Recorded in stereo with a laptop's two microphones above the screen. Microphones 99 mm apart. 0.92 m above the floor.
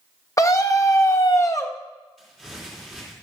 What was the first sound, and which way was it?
A scream, 30° left (ahead or behind).